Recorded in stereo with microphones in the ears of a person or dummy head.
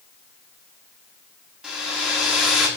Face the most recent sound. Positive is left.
turn(degrees=0)  # may be behind; listen again after turning